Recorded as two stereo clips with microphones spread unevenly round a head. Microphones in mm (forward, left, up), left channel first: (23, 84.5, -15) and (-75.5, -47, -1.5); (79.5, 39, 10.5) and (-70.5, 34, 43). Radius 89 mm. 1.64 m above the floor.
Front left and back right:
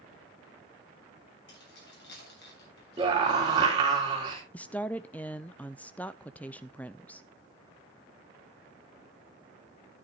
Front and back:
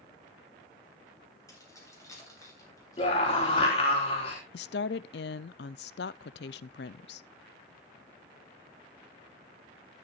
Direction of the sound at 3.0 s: 60° right.